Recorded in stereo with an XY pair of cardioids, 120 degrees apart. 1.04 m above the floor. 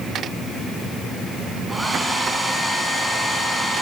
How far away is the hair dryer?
About 6 m.